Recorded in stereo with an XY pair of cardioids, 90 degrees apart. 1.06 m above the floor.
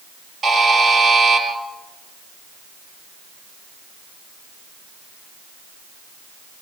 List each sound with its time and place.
0.4 s a buzzer: 55° right, 6 m